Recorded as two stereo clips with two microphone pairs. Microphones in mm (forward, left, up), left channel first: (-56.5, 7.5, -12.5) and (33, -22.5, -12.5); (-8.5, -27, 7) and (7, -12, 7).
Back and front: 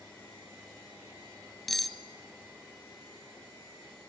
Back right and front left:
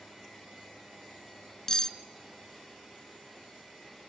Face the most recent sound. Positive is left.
turn(degrees=-110)